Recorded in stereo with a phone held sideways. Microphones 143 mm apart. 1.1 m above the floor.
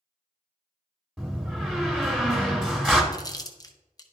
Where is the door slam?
Centre (ahead or behind), 1.4 m.